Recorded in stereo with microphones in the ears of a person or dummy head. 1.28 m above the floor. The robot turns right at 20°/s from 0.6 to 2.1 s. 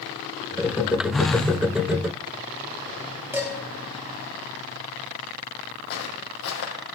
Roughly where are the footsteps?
Left.